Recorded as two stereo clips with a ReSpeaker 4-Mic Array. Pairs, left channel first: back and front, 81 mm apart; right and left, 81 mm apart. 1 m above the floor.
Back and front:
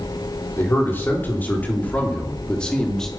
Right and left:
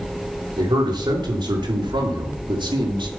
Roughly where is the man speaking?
Behind left.